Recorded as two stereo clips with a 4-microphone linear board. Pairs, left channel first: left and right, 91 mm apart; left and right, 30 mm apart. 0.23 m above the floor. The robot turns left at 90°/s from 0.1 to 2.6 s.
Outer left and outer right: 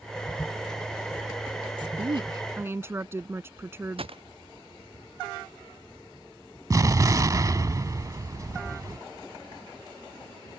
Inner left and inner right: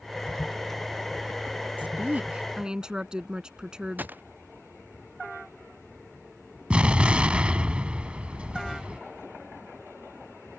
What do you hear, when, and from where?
1.8 s a woman speaking: 75° right; by 4.1 s 150° right
4.0 s a gunshot: 85° right
6.7 s an explosion: 40° right (ahead or behind)